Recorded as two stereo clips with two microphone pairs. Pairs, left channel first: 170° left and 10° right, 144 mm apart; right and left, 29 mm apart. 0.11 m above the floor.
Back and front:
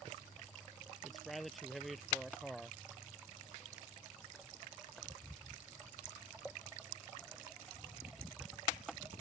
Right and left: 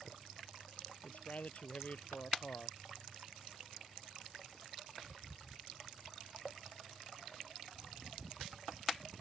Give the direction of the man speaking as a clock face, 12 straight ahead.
3 o'clock.